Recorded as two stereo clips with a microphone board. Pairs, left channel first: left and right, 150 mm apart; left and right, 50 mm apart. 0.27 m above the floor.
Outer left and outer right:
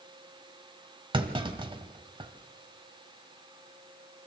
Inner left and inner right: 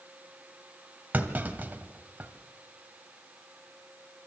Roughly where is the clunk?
Right.